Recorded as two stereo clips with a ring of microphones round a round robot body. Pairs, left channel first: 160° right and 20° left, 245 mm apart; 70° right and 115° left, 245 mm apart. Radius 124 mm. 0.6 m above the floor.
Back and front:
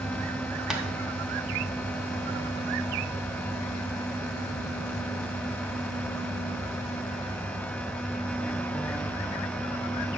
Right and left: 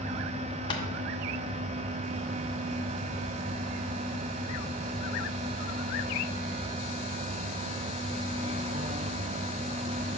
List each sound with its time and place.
0.7 s tapping: 60° right, 0.8 m